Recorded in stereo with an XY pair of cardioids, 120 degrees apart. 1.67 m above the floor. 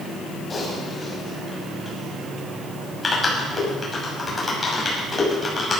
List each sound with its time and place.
0.5 s typing on a keyboard: 20° left, 6 m